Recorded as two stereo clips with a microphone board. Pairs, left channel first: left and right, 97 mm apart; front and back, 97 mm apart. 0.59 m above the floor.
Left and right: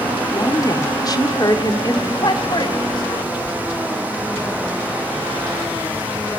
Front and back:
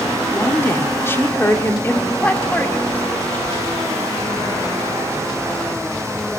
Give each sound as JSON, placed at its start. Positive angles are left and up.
{"t": 0.3, "sound": "a woman speaking", "azimuth_deg": 60, "distance_m": 1.7}
{"t": 2.2, "sound": "a man speaking", "azimuth_deg": 70, "distance_m": 2.0}